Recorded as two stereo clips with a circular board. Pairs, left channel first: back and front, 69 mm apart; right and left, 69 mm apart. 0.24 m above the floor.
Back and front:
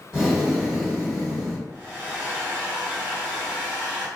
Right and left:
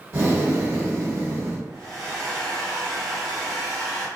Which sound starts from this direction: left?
Breathing, at 0.1 s.